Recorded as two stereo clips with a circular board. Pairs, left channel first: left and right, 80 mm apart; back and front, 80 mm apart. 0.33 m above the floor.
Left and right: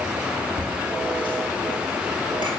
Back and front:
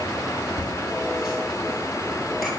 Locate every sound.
0.6 s laughter: 80° right, 5.5 m; by 2.5 s 90° right, 6.5 m